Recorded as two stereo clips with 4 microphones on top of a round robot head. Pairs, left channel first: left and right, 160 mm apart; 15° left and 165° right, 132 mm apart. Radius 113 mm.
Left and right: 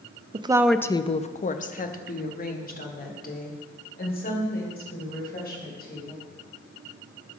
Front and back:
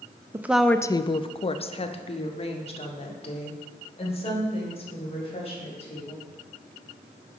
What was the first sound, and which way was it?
A woman speaking, 110° right.